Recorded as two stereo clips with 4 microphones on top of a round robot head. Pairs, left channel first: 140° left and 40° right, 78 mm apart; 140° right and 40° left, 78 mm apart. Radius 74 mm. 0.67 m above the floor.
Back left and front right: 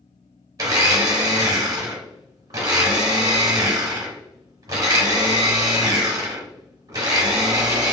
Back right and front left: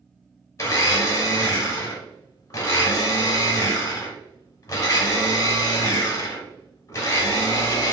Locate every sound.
0.6 s a blender: 85° right, 0.7 m